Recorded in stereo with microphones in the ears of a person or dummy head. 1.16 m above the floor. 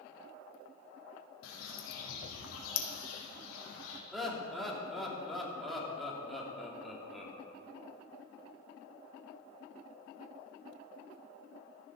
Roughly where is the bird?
Left.